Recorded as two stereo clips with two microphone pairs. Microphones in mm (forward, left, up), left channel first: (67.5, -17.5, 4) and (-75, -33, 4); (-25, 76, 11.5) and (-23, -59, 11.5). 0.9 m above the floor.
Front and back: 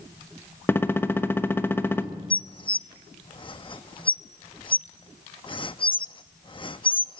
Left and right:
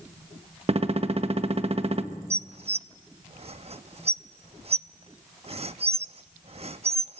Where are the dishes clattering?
50° right, 0.6 m.